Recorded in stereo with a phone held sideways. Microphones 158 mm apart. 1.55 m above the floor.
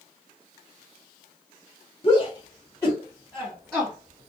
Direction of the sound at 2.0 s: 35° left (ahead or behind).